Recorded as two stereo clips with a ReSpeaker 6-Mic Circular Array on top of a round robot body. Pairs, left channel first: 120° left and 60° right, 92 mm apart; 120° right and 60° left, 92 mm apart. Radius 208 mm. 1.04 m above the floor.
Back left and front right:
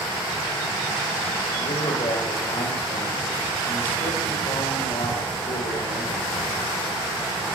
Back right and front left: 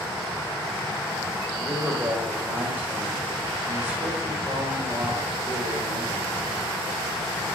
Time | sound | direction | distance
1.6 | a man speaking | 130° left | 6.5 m